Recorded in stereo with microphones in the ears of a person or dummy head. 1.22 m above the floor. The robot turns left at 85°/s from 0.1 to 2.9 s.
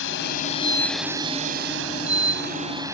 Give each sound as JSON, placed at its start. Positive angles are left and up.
{"t": 0.0, "sound": "a drone", "azimuth_deg": 80}